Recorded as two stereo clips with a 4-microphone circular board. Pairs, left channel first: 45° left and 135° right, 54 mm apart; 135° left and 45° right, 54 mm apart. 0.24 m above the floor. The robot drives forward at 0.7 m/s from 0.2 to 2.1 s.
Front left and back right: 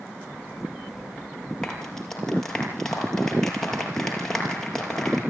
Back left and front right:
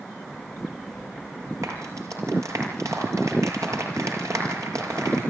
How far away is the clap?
About 5.5 m.